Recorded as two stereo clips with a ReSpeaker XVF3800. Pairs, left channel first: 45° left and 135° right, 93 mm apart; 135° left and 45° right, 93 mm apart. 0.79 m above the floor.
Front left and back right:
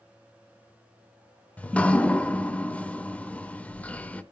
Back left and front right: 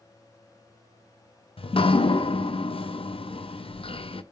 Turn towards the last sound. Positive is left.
turn(degrees=120)